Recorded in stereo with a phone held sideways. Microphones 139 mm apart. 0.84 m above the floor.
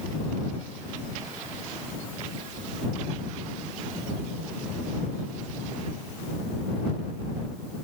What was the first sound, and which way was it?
Only background noise.